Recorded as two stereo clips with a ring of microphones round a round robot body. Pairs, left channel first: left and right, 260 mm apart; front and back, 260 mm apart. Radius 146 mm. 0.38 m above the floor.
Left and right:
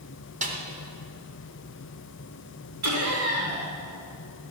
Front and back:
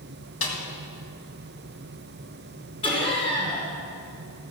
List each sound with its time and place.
0.4 s a snare drum: 30° right, 2.5 m
2.8 s laughter: 70° right, 4 m